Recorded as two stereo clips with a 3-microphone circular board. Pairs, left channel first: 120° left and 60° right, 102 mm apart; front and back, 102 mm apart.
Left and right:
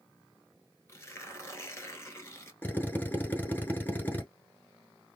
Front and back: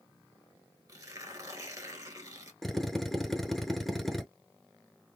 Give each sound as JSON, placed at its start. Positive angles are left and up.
{"t": 0.9, "sound": "tearing paper", "azimuth_deg": 160, "distance_m": 0.9}
{"t": 2.6, "sound": "a drill", "azimuth_deg": 85, "distance_m": 0.7}